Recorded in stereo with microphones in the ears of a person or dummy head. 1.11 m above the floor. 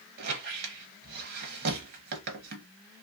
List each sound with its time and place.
0.2 s a squeak: 60° right (ahead or behind), 0.7 m